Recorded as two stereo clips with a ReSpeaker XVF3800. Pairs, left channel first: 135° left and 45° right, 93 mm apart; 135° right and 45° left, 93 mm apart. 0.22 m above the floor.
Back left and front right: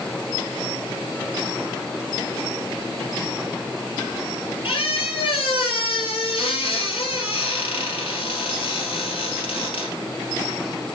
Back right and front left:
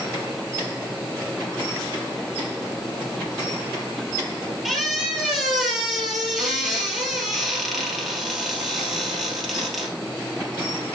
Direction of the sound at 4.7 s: 135° left.